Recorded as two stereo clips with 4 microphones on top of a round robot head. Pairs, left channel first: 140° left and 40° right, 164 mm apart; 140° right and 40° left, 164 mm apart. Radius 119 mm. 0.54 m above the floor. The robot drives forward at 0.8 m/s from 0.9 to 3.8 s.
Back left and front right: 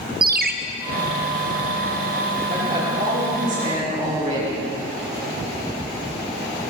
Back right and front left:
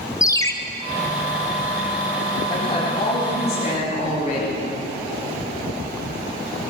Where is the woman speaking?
80° right, 5.5 m; by 4.6 s 90° right, 5.5 m.